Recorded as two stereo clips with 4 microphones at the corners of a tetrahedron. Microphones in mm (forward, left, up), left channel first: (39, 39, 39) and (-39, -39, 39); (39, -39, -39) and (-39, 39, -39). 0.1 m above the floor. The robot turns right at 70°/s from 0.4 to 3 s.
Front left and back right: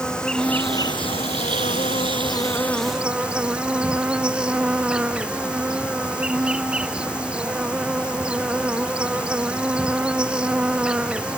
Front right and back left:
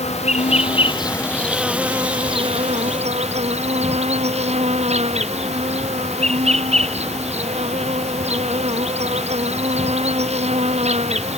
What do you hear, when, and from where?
0.0 s an insect: 35° right; by 11.4 s 145° left